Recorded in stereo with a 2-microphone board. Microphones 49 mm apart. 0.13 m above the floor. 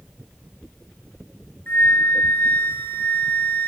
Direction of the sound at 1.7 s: 40° left (ahead or behind).